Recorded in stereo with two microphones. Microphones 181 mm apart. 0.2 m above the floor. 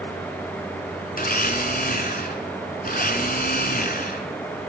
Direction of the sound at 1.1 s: 50° left (ahead or behind).